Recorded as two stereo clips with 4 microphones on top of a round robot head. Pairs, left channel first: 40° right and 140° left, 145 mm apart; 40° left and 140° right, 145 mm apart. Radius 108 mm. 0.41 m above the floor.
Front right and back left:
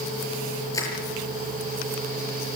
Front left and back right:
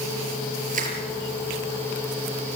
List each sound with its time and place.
0.7 s crushing: 105° right, 6 m